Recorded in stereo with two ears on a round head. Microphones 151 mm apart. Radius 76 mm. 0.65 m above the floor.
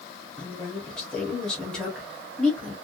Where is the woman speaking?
5° left (ahead or behind), 1.1 m.